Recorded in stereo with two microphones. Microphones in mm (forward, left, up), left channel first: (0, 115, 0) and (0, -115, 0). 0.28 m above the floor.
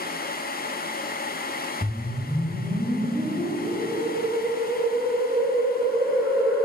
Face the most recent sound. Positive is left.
turn(degrees=-15)  # may be behind; listen again after turning